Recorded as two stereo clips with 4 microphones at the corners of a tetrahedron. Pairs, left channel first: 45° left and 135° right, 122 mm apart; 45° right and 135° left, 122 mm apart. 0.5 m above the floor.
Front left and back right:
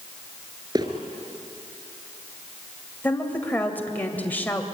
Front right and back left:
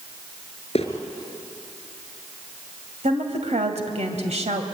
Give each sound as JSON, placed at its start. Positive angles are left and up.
{"t": 0.8, "sound": "footsteps", "azimuth_deg": -80, "distance_m": 4.5}
{"t": 3.0, "sound": "a woman speaking", "azimuth_deg": 120, "distance_m": 2.0}